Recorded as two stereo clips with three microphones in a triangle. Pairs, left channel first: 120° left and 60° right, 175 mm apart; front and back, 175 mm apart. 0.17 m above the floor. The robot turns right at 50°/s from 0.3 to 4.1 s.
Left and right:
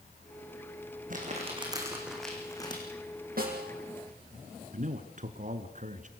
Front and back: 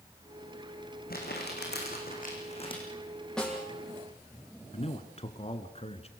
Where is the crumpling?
25° right, 6 m; by 2.8 s 60° left, 6 m.